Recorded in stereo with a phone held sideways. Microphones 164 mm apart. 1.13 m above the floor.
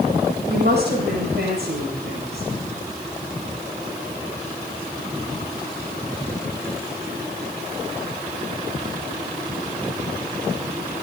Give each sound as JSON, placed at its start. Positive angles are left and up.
{"t": 0.5, "sound": "a woman speaking", "side_deg": -85, "distance_m": 8.5}